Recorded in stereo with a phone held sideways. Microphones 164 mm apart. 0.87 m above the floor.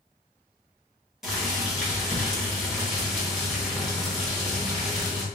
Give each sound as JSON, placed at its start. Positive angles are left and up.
{"t": 1.2, "sound": "boiling", "side_deg": 0, "distance_m": 1.5}